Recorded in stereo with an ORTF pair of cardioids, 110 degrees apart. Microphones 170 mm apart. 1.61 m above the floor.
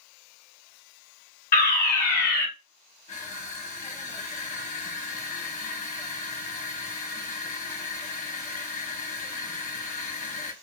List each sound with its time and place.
1.5 s a fire alarm: 65° left, 1.7 m
3.1 s crushing: 45° left, 1.3 m